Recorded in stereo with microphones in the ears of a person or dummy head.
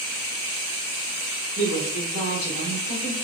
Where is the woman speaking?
75° left (ahead or behind), 2 m.